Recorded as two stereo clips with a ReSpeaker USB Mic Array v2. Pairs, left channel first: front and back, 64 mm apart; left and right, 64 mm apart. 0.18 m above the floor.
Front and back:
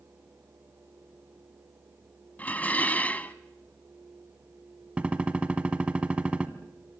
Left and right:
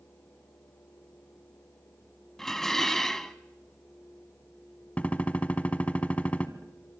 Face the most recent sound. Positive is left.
turn(degrees=130)